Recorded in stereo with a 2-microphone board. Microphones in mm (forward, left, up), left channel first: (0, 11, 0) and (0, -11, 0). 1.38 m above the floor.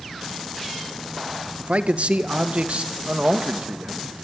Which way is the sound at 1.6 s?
75° right (ahead or behind).